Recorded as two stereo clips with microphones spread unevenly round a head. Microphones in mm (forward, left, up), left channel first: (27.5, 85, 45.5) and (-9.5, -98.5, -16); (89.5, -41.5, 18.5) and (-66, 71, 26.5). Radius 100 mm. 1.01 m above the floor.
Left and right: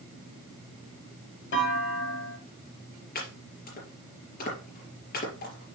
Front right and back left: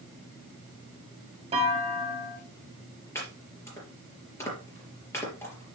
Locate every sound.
1.5 s a clunk: 85° left, 1.9 m
3.1 s chopping: 40° left, 4 m